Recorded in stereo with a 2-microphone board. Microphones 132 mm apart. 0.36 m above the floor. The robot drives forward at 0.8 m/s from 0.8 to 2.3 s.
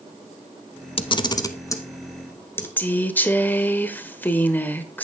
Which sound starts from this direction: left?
A camera shutter, at 1.0 s.